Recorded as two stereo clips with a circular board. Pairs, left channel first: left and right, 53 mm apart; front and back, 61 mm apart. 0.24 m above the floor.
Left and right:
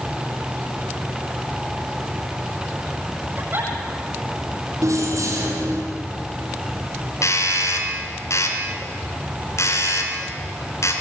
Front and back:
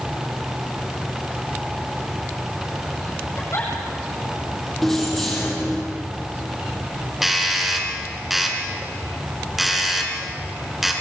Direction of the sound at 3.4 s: 40° right.